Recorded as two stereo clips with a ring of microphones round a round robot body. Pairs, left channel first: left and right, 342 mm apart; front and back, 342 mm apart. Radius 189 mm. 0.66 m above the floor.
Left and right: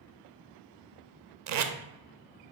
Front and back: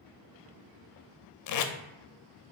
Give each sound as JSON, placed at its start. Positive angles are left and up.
{"t": 1.5, "sound": "tape being pulled", "azimuth_deg": -45, "distance_m": 0.5}